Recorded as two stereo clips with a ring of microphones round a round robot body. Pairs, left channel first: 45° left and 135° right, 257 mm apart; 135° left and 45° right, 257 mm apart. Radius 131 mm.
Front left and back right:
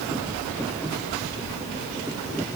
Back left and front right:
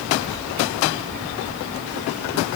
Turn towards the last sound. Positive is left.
No sound to turn to.